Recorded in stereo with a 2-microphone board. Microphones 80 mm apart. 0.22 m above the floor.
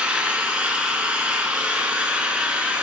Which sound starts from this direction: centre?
An engine running, at 0.0 s.